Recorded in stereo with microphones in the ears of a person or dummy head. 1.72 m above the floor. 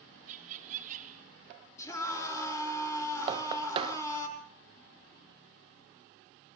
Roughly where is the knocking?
Right.